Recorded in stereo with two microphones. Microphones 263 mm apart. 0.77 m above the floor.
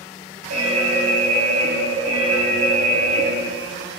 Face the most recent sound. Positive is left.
turn(degrees=-70)  # may be behind; listen again after turning